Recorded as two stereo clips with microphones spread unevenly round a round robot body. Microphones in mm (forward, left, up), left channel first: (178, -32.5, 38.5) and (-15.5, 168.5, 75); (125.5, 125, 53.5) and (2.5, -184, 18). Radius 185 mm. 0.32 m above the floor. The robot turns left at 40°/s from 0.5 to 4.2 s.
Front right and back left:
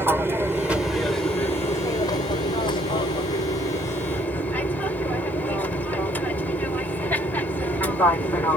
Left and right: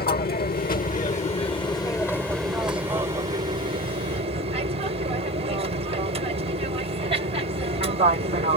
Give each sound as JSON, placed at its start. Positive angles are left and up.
{"t": 0.0, "sound": "an aircraft", "azimuth_deg": 45}